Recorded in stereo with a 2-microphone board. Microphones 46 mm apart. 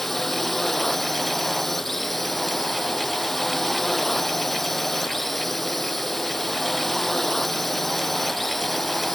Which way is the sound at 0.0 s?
5° left (ahead or behind).